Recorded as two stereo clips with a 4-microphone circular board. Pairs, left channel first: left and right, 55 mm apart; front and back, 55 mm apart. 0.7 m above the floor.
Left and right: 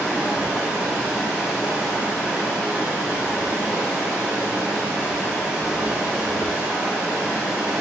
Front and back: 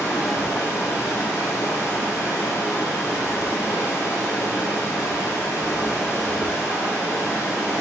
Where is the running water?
15° right, 1.6 m.